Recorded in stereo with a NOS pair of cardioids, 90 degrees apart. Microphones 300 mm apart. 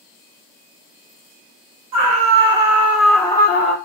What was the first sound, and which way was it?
A scream, 55° right.